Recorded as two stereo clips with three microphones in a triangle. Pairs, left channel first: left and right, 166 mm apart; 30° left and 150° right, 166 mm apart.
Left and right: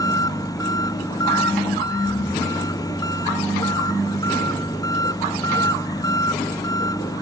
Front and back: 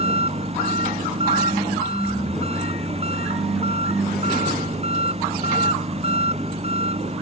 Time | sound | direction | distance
0.0 | an engine running | 160° left | ?